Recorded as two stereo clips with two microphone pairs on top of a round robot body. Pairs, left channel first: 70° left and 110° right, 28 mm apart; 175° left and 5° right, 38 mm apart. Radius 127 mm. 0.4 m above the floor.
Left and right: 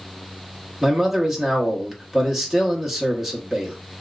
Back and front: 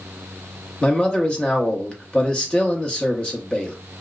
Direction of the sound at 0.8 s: 160° left.